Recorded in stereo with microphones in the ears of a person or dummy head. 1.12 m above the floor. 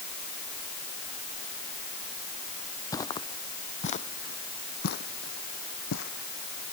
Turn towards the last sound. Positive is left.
turn(degrees=75)  # may be behind; listen again after turning